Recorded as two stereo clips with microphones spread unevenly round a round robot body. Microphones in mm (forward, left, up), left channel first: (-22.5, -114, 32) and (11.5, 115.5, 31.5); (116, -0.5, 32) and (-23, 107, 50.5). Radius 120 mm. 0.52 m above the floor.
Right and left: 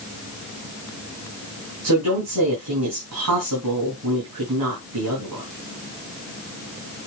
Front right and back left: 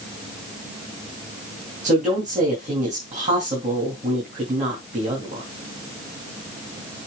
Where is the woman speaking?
95° left, 4 m.